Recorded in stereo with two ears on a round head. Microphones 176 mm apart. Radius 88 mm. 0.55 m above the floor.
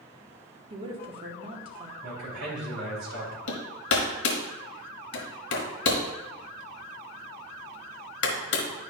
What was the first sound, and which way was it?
A woman speaking, 30° right (ahead or behind).